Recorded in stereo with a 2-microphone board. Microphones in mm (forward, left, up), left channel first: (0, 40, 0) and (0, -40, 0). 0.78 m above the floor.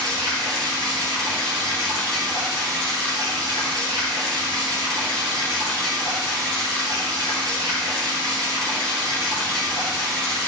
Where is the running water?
55° right (ahead or behind), 5.5 m.